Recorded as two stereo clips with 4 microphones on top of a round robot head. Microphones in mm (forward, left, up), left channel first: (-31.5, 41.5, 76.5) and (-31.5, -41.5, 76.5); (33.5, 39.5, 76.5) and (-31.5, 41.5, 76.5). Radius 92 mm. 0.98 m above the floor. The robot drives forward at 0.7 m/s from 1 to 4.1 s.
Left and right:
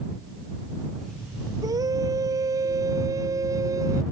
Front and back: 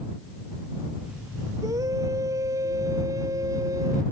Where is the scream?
135° right; by 4.0 s 140° right.